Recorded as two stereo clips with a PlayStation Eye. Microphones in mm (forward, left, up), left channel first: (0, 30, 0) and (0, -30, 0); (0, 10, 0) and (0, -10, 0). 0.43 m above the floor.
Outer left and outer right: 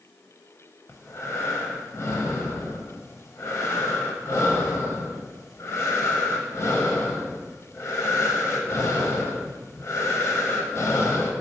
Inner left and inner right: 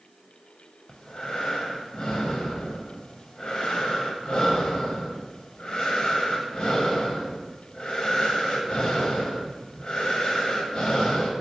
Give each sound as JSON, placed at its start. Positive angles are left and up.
{"t": 0.9, "sound": "breathing", "side_deg": 50, "distance_m": 0.6}